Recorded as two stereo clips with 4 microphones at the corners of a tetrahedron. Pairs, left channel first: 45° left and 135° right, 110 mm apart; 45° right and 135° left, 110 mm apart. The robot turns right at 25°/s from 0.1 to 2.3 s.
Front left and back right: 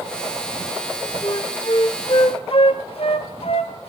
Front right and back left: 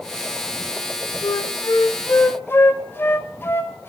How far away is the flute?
About 0.6 m.